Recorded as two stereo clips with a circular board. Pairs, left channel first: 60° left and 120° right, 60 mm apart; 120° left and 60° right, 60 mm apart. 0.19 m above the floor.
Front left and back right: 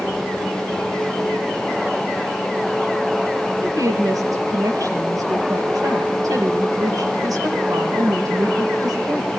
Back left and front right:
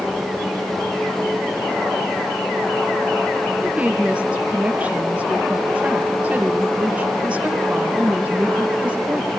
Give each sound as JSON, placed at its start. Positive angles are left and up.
{"t": 3.6, "sound": "a woman speaking", "azimuth_deg": -130, "distance_m": 4.5}